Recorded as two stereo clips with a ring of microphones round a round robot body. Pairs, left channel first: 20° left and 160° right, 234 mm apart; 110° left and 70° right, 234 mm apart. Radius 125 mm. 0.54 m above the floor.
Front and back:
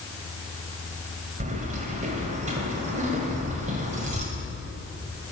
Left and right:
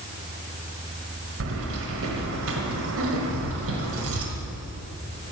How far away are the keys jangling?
About 1.8 m.